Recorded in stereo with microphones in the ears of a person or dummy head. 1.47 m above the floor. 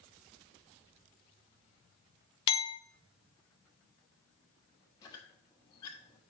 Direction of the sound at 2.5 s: 25° left (ahead or behind).